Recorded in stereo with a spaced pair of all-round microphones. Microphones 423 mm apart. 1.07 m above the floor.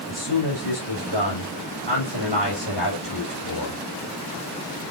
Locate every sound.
0.1 s a man speaking: 75° left (ahead or behind), 7 m